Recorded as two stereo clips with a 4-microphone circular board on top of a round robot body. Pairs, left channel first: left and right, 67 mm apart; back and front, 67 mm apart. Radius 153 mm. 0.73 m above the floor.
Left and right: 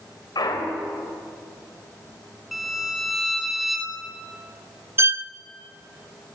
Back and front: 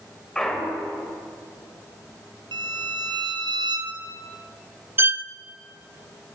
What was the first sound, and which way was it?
A clunk, 100° left.